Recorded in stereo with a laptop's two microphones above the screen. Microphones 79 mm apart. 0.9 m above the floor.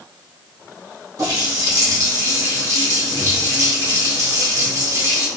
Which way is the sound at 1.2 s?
40° right (ahead or behind).